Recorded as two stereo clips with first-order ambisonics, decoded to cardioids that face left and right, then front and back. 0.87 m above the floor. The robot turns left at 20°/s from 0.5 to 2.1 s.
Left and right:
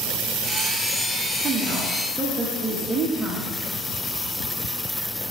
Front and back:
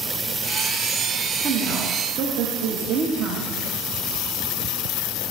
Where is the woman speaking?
140° right, 0.8 m; by 3.5 s 155° right, 0.8 m.